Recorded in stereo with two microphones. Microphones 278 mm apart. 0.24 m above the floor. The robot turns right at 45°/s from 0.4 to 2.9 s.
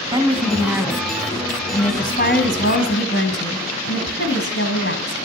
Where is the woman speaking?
25° right, 1.8 m; by 5.2 s 85° left, 1.8 m.